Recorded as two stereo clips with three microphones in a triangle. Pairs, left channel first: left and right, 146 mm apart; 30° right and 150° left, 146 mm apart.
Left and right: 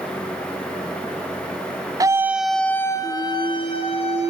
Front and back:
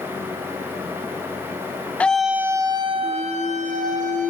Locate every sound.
2.0 s a scream: 95° right, 1.1 m; by 4.3 s 130° left, 2.5 m